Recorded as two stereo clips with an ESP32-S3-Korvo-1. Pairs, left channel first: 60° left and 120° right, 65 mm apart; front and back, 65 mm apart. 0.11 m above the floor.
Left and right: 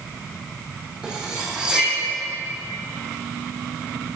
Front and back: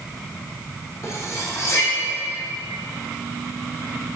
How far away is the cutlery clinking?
About 3 m.